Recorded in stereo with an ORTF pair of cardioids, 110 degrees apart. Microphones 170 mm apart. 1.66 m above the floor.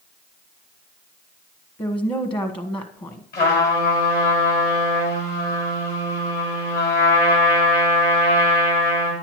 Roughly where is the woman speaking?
Ahead left.